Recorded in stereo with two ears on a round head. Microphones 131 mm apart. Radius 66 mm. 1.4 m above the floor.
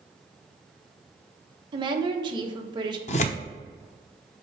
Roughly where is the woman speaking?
Right.